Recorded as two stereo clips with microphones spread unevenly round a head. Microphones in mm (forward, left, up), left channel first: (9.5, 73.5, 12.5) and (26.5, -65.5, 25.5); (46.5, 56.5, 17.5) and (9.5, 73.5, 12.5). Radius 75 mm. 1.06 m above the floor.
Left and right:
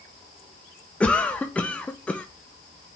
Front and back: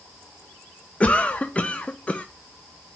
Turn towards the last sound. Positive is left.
turn(degrees=25)